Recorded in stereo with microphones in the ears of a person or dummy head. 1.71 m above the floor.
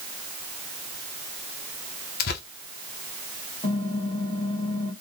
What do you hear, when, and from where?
2.2 s tearing paper: 55° left (ahead or behind), 0.7 m
3.6 s typing on a keyboard: 20° left (ahead or behind), 1.8 m